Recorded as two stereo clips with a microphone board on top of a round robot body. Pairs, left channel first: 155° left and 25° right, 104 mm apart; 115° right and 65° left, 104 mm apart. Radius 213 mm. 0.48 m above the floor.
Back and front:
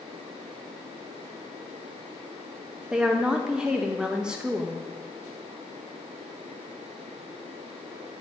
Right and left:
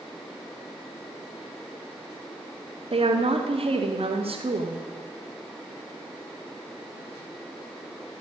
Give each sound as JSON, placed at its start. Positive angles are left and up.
{"t": 2.9, "sound": "a woman speaking", "azimuth_deg": 60, "distance_m": 1.8}